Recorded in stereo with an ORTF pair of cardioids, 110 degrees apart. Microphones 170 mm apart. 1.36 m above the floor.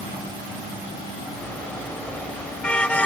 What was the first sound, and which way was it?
A car horn, 5° left.